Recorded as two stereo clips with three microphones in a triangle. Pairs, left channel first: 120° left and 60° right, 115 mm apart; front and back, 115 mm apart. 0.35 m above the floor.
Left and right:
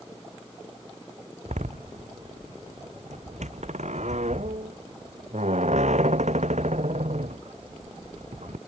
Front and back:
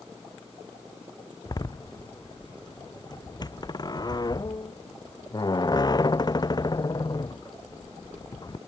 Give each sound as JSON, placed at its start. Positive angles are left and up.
{"t": 1.4, "sound": "a door slam", "azimuth_deg": -55}